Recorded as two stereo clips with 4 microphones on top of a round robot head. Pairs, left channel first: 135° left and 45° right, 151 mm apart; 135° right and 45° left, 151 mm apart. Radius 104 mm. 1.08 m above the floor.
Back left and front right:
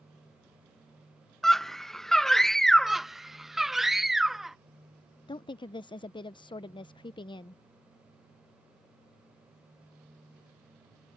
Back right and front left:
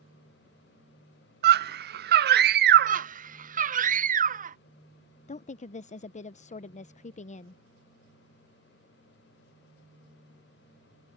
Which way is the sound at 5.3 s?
170° right.